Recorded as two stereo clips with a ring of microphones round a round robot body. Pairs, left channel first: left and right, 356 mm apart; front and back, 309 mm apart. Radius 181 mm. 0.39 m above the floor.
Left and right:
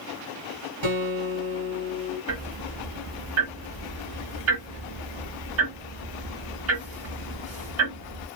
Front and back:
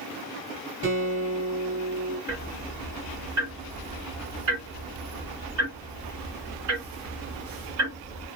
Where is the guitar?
120° right, 2 m.